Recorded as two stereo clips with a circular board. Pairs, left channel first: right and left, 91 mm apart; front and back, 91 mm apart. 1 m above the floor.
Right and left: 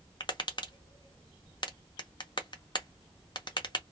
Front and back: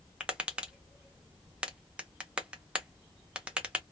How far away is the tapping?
About 0.7 m.